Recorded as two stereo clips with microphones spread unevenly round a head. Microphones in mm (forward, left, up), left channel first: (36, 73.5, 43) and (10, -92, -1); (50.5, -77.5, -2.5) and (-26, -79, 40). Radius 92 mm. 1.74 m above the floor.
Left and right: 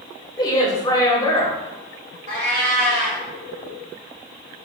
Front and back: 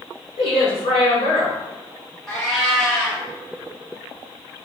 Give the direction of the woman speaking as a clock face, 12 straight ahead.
11 o'clock.